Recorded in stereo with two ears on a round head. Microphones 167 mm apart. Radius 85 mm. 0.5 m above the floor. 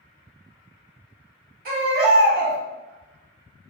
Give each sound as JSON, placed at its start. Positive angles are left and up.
{"t": 1.6, "sound": "a baby crying", "side_deg": -50, "distance_m": 1.3}